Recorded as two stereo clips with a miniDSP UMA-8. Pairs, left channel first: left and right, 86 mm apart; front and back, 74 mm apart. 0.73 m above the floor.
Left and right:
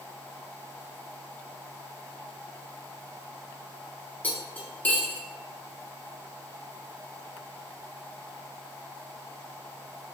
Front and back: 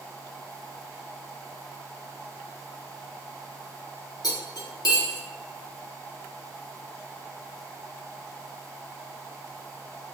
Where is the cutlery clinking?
20° left, 0.6 m.